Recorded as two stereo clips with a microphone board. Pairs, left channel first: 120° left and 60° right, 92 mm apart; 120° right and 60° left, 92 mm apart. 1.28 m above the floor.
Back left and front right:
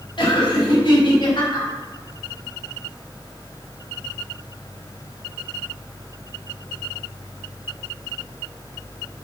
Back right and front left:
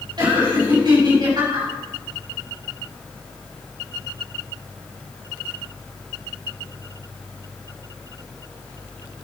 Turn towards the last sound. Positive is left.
turn(degrees=95)